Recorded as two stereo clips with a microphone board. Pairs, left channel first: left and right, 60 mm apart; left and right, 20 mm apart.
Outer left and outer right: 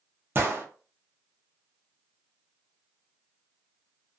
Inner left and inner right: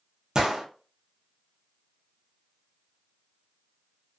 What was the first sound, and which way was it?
A gunshot, 40° right (ahead or behind).